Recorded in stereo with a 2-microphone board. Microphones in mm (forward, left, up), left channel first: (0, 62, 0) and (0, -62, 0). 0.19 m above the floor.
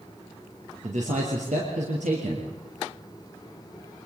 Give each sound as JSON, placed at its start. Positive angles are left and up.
{"t": 0.8, "sound": "a man speaking", "side_deg": -70, "distance_m": 4.0}